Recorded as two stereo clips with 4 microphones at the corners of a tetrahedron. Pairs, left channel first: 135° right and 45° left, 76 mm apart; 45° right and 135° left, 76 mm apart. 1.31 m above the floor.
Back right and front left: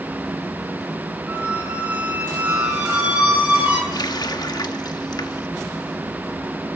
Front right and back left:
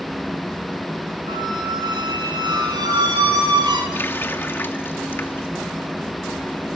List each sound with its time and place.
1.3 s a squeak: 115° left, 9 m
3.9 s a running tap: 105° right, 1.7 m